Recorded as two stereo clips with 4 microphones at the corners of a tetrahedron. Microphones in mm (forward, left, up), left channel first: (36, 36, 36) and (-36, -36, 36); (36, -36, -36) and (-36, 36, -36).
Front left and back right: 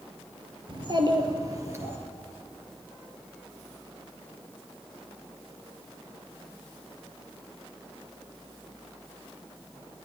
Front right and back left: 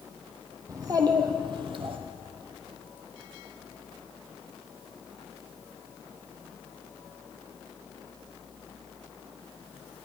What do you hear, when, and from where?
0.7 s a child speaking: 170° right, 1.9 m; by 2.0 s 160° left, 1.8 m